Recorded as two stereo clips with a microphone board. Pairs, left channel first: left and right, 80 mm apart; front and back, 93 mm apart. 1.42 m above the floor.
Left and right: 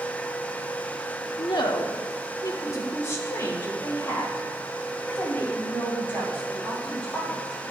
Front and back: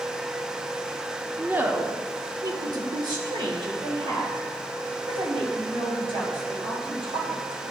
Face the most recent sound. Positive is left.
turn(degrees=160)